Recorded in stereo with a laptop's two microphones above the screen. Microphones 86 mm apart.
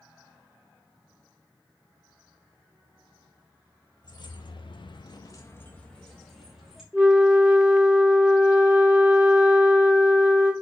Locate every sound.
4.0 s keys jangling: 55° left (ahead or behind), 0.8 m; by 6.8 s 5° right (ahead or behind), 1.2 m
6.9 s a flute: 20° right (ahead or behind), 1.5 m